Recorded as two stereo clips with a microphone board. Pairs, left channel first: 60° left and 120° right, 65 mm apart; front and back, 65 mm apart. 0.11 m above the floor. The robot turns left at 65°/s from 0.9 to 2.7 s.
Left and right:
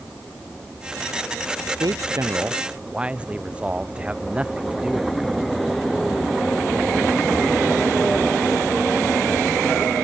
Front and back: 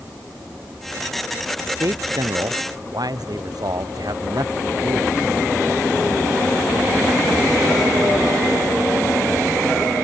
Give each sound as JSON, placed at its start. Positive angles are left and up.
{"t": 1.6, "sound": "a man speaking", "azimuth_deg": -125}